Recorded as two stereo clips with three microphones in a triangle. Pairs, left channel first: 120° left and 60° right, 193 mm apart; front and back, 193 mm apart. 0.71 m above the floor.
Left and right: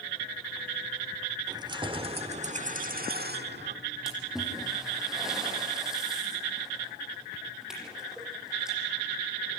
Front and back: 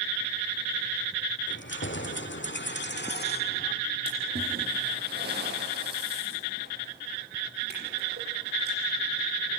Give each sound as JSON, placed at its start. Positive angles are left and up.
{"t": 1.5, "sound": "keys jangling", "azimuth_deg": 10, "distance_m": 1.9}
{"t": 4.1, "sound": "a splash", "azimuth_deg": -145, "distance_m": 7.5}